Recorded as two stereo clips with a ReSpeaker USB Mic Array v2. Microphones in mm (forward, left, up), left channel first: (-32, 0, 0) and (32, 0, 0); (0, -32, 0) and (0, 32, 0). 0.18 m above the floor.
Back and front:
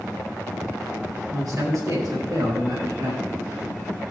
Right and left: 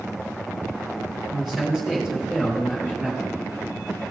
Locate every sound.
1.3 s a man speaking: 5° left, 4.5 m; by 3.2 s 20° left, 4 m